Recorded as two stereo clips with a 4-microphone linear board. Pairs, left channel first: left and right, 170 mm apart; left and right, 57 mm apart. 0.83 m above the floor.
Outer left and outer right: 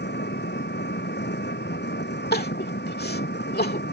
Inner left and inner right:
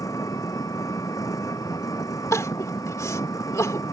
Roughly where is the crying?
Left.